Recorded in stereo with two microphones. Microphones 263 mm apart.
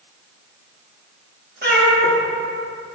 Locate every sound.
1.6 s a cat meowing: 40° right (ahead or behind), 0.9 m